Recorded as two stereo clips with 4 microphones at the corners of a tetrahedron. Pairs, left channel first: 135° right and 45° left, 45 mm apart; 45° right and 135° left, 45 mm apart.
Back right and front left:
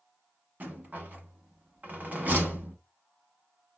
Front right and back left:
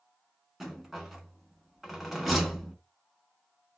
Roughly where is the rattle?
Ahead left.